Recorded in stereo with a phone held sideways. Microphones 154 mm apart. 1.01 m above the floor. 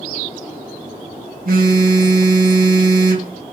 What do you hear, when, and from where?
1.4 s a phone buzzing: 70° right (ahead or behind), 1.4 m